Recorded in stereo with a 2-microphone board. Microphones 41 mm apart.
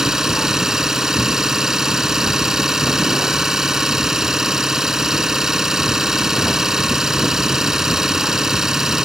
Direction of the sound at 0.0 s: 15° right (ahead or behind).